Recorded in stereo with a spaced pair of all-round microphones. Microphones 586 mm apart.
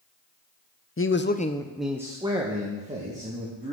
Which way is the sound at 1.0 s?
25° left (ahead or behind).